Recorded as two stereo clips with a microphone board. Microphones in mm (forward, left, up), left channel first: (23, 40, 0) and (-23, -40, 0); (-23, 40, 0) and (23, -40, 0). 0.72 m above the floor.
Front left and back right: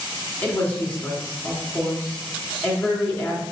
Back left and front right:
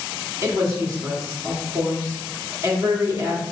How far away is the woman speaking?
About 1.6 m.